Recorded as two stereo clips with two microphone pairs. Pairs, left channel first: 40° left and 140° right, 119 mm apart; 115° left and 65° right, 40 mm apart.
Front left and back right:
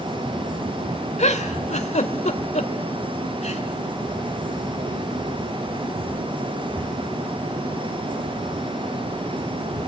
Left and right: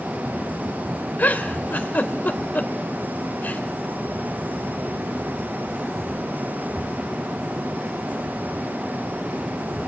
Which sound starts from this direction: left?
A giggle, at 1.2 s.